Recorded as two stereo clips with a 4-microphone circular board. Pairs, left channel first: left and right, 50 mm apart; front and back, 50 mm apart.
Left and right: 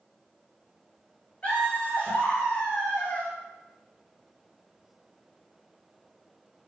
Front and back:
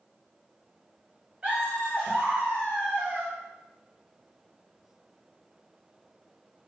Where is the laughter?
140° left, 1.9 m.